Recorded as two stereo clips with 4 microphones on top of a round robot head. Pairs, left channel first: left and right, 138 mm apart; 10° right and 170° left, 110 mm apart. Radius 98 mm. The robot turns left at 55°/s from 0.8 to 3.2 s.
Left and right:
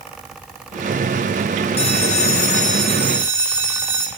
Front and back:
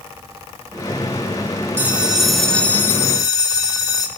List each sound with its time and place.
1.8 s a bell: 110° left, 1.1 m; by 4.1 s 30° left, 1.1 m